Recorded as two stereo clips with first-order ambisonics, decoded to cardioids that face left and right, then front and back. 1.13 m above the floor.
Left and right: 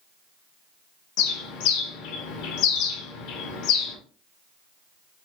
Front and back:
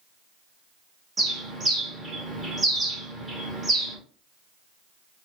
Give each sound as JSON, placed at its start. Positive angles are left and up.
{"t": 1.2, "sound": "a bird", "azimuth_deg": 100, "distance_m": 1.2}